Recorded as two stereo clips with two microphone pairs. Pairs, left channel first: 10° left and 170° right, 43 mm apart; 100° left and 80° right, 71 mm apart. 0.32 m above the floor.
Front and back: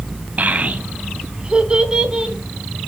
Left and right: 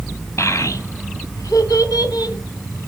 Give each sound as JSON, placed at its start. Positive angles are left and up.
{"t": 0.4, "sound": "a child speaking", "azimuth_deg": 145, "distance_m": 1.6}